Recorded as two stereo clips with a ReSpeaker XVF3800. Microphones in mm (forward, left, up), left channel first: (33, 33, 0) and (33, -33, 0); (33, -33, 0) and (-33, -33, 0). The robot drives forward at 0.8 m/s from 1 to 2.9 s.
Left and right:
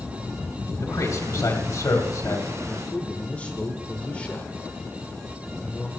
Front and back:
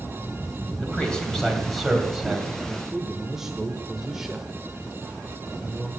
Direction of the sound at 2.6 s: 75° left.